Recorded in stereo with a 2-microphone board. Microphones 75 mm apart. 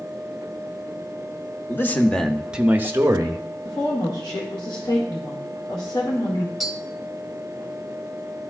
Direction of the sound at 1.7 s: 30° left (ahead or behind).